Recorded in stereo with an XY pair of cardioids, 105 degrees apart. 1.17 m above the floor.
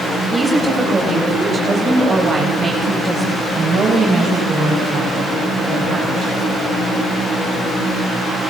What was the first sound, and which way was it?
A woman speaking, 25° right.